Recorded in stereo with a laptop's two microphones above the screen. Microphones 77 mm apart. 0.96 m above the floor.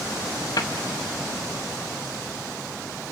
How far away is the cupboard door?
About 1.5 m.